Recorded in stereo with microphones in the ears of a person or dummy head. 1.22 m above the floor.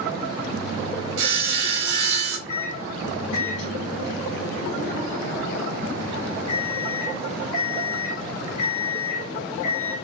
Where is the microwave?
70° left (ahead or behind), 1.1 m.